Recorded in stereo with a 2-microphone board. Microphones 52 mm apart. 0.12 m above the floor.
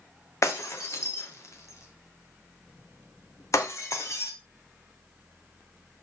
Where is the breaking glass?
70° left (ahead or behind), 1.1 m.